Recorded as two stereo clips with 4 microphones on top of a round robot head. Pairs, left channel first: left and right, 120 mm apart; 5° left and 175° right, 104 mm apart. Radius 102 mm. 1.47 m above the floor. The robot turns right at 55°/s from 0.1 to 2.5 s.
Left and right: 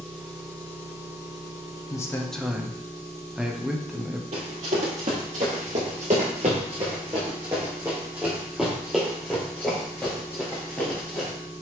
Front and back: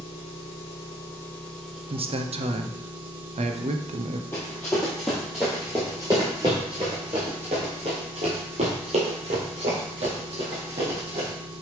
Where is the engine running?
10° left, 3 m; by 11.6 s 140° left, 3 m.